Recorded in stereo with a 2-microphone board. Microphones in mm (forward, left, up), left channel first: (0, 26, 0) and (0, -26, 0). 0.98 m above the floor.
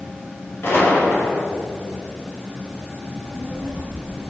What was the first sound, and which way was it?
A gunshot, 45° left (ahead or behind).